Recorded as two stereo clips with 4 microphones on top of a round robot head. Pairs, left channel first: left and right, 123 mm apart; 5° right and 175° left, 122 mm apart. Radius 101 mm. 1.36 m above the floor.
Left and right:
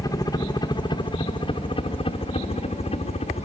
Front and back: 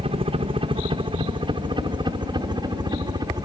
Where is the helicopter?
145° left; by 3.5 s 120° left.